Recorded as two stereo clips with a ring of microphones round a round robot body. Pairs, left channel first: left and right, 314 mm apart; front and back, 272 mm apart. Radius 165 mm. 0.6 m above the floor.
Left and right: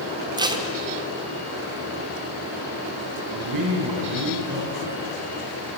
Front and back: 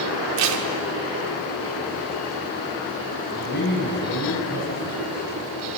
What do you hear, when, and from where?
0.4 s tape being pulled: 165° right, 1.6 m
3.3 s a man speaking: 60° right, 6 m